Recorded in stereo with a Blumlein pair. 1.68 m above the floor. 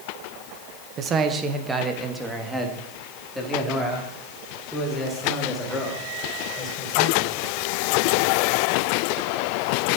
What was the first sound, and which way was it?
A man speaking, 30° right.